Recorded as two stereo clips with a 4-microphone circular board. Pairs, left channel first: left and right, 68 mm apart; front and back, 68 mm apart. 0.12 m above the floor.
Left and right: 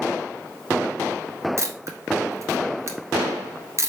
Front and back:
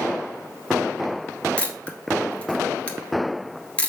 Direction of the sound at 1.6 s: 70° right.